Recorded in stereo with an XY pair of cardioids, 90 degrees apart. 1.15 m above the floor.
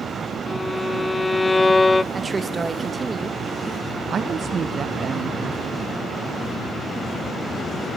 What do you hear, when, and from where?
0.5 s a violin: 25° left, 0.6 m
2.1 s a woman speaking: 30° right, 0.9 m
4.1 s a woman speaking: 55° right, 0.6 m